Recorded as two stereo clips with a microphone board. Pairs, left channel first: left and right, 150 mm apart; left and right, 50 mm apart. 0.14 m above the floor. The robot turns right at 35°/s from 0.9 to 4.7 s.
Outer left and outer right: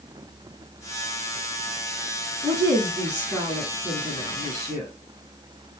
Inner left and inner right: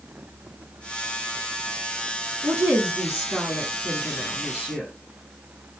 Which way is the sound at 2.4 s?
20° right (ahead or behind).